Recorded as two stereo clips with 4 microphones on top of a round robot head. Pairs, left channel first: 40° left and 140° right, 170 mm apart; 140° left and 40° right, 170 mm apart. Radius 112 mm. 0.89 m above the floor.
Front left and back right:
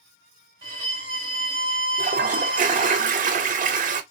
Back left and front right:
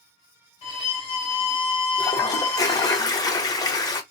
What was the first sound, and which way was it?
A violin, 175° left.